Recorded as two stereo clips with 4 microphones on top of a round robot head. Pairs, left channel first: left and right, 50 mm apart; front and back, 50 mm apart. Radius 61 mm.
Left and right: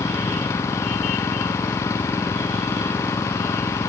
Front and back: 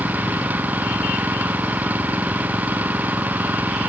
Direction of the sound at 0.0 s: 125° left.